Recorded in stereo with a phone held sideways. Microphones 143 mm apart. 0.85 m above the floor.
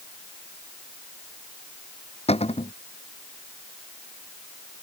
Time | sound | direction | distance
2.3 | a cupboard door | 45° left (ahead or behind) | ?